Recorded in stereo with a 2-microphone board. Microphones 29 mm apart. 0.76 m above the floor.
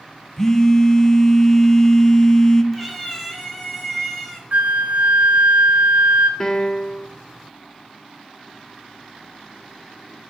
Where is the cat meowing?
5° right (ahead or behind), 1.9 m.